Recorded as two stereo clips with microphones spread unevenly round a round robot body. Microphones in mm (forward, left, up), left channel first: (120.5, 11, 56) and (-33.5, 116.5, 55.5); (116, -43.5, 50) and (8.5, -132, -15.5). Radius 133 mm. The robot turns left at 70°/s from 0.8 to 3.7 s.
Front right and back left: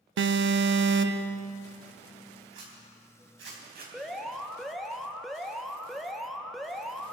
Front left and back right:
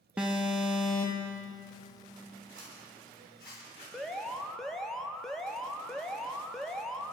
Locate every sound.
0.2 s an alarm: 145° left, 0.8 m; by 1.4 s 110° left, 0.8 m
2.5 s a zipper: 170° right, 4 m; by 3.8 s 110° left, 4 m
3.9 s an alarm: 125° right, 1.2 m